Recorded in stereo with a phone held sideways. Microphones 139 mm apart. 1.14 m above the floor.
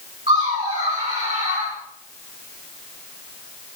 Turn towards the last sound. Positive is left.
turn(degrees=-60)  # may be behind; listen again after turning